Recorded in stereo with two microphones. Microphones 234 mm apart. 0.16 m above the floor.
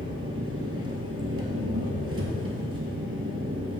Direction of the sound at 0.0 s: 70° right (ahead or behind).